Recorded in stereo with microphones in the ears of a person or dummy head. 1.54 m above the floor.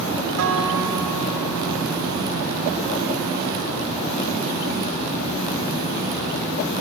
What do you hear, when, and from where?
0.4 s a guitar: 65° right (ahead or behind), 4.5 m